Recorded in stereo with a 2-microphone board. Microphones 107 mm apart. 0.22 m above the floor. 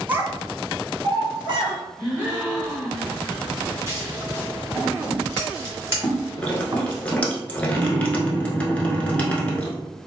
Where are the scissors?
25° right (ahead or behind), 1.3 m.